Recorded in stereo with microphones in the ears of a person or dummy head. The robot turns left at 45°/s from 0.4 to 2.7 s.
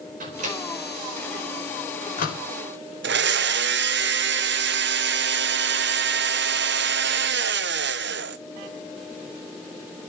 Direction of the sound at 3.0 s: 55° right (ahead or behind).